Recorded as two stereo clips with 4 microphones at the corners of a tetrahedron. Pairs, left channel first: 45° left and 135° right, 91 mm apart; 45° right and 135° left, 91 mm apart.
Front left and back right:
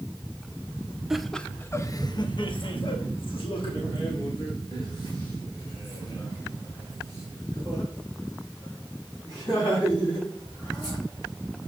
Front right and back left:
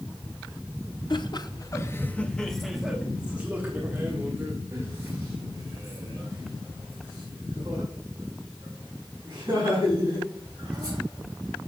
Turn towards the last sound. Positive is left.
turn(degrees=80)